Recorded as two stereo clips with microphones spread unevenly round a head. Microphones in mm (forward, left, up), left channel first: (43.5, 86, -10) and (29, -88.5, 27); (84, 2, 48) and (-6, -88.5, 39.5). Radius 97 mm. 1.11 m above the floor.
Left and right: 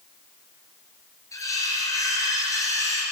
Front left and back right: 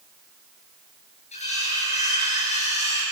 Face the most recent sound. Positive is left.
turn(degrees=10)